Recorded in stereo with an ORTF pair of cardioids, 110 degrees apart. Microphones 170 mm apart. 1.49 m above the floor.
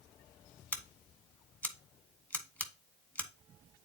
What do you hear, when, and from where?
0.7 s scissors: 10° left, 1.3 m